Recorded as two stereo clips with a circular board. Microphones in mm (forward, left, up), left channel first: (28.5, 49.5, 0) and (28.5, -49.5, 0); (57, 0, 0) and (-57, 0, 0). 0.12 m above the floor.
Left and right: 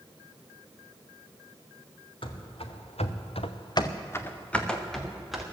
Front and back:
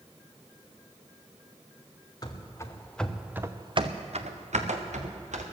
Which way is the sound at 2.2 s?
55° left.